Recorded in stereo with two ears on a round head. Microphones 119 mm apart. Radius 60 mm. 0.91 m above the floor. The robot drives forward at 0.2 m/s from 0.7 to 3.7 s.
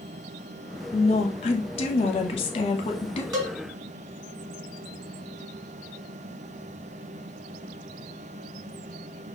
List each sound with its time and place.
0.9 s a woman speaking: 45° left (ahead or behind), 1.0 m; by 3.2 s 40° left (ahead or behind), 1.1 m
3.3 s a cowbell: 30° right (ahead or behind), 1.4 m